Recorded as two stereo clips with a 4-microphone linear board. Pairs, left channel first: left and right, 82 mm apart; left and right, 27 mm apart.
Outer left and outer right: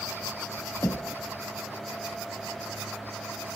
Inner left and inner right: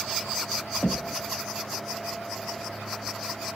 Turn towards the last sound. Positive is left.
turn(degrees=30)  # may be behind; listen again after turning